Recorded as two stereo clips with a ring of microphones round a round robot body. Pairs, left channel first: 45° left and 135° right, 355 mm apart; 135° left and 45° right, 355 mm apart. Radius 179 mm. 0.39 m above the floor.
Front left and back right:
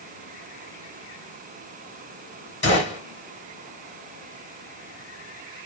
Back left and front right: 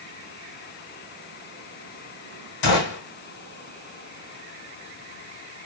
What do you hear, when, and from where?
2.6 s a gunshot: 110° left, 1.3 m